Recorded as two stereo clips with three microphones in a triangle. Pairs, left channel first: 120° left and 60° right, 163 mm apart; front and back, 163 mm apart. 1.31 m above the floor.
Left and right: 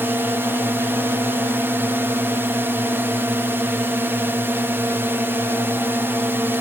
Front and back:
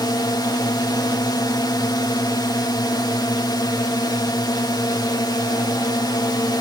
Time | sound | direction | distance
0.0 | a drone | 5° right | ?